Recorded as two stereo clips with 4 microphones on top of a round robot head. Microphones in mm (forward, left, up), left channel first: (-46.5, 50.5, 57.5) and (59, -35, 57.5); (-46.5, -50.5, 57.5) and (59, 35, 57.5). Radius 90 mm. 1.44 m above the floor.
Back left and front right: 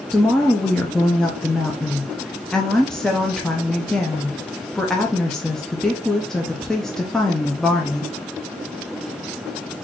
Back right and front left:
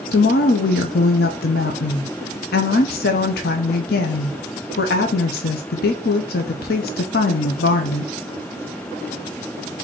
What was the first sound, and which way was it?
A woman speaking, 130° right.